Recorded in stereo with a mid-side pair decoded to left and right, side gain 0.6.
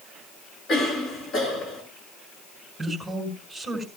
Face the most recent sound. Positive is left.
turn(degrees=0)